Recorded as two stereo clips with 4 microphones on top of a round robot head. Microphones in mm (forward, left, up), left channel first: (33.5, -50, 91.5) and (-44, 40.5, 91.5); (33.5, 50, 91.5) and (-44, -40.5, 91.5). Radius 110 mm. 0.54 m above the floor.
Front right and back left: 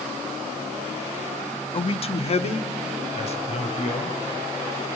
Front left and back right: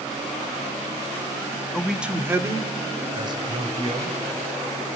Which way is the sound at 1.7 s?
35° right.